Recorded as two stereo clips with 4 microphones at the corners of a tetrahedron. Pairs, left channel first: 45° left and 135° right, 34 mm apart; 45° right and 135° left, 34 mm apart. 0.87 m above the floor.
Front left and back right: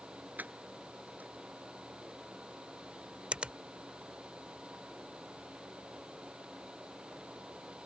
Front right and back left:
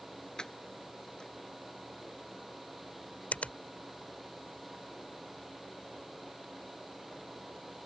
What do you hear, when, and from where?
0.4 s keys jangling: 115° right
3.3 s a finger snap: 85° right